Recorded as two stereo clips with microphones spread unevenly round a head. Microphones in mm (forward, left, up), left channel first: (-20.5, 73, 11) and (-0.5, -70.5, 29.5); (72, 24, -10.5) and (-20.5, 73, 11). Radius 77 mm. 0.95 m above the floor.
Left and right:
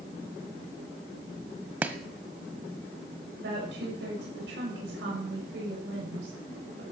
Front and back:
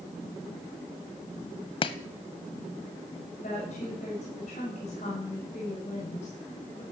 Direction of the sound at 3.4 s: 70° right.